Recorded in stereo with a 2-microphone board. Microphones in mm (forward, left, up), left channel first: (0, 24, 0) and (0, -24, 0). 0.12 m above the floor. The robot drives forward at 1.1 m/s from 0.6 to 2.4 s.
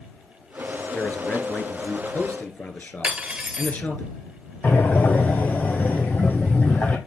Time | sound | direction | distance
0.9 | a man speaking | 35° left (ahead or behind) | 1.6 m
3.0 | cutlery clinking | 20° right (ahead or behind) | 1.2 m
4.6 | breathing | 40° left (ahead or behind) | 1.3 m